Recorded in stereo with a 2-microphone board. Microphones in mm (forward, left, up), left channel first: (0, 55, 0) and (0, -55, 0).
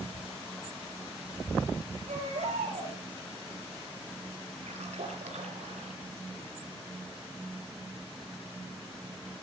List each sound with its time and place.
2.1 s a baby crying: 90° right, 9 m
4.7 s a splash: 85° right, 4 m